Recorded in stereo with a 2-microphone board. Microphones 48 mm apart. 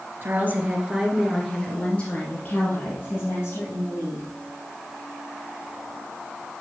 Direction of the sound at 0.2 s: 45° right (ahead or behind).